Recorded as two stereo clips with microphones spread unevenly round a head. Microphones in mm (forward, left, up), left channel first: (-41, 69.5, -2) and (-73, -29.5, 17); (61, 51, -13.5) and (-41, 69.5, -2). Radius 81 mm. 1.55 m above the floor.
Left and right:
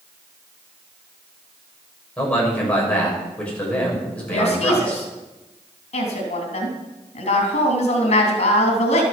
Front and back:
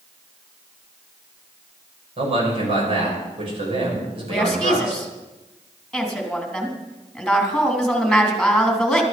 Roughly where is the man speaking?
Behind left.